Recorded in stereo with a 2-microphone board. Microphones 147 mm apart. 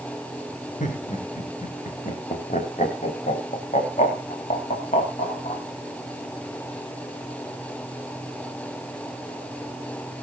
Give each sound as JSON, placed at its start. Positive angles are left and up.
{"t": 0.8, "sound": "laughter", "side_deg": 60, "distance_m": 5.0}